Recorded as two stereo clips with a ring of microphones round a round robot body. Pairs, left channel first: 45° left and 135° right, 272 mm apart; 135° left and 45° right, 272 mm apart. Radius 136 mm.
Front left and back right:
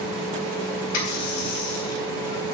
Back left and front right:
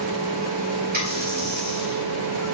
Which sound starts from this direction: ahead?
A running tap, at 0.9 s.